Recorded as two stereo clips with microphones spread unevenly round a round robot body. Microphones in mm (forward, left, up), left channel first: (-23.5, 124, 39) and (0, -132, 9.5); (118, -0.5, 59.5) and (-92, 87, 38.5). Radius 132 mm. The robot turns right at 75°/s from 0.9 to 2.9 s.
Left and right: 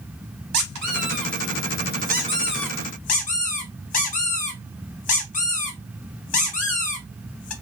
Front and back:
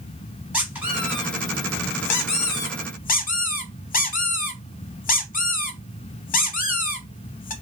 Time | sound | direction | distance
0.5 | a squeak | 115° right | 0.7 m